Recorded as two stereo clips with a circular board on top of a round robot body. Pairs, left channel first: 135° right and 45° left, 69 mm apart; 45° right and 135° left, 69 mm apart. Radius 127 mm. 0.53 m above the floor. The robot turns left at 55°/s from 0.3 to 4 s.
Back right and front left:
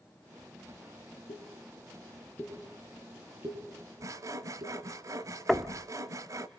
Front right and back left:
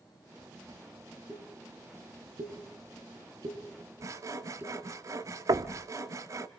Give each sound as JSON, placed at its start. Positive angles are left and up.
{"t": 1.3, "sound": "a pop", "azimuth_deg": -135, "distance_m": 9.5}
{"t": 4.0, "sound": "sawing", "azimuth_deg": 90, "distance_m": 0.8}
{"t": 5.5, "sound": "knocking", "azimuth_deg": 135, "distance_m": 1.0}